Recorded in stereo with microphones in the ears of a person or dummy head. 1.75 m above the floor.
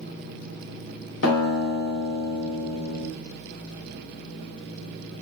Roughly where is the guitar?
Left.